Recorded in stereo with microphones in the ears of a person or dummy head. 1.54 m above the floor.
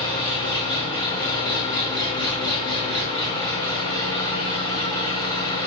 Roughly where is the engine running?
Centre.